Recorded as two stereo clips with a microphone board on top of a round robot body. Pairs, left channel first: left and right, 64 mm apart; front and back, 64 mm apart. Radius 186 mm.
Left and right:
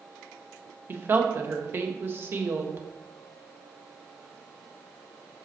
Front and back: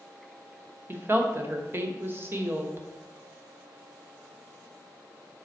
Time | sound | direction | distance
0.9 | a woman speaking | 135° right | 1.4 m